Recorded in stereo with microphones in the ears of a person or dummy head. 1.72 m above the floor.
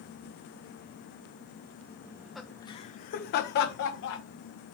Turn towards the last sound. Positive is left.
turn(degrees=75)  # may be behind; listen again after turning